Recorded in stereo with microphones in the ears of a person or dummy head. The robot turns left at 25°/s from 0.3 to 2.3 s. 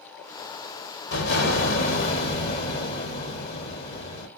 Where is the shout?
No shout in this recording.